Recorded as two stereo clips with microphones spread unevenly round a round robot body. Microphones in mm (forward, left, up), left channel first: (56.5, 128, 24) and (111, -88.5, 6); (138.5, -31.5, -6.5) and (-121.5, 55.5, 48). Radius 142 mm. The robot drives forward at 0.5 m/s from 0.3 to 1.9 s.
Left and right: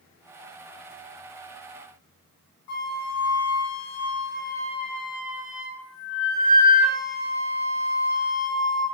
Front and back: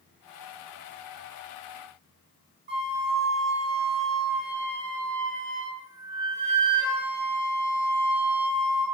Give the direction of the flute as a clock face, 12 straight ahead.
8 o'clock.